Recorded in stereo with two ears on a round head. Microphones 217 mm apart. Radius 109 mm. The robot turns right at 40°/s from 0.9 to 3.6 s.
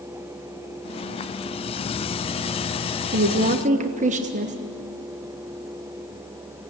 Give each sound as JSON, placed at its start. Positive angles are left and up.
{"t": 3.1, "sound": "a woman speaking", "side_deg": -45, "distance_m": 1.1}